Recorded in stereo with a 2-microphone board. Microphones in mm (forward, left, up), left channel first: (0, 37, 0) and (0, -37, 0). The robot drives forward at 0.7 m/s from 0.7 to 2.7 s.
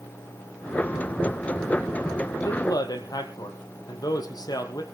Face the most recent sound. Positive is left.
turn(degrees=60)  # may be behind; listen again after turning